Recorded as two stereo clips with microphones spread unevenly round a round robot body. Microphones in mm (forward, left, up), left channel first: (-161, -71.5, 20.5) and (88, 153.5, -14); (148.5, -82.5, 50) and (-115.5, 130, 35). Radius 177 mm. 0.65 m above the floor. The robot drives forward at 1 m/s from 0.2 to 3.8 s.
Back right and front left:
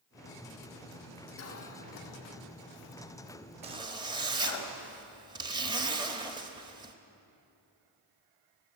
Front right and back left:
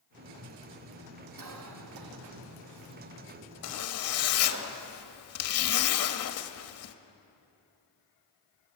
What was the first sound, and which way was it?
A cough, 175° left.